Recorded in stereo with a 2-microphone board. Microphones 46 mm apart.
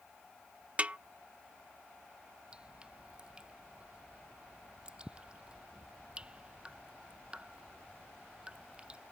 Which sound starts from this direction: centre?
Dripping, at 2.5 s.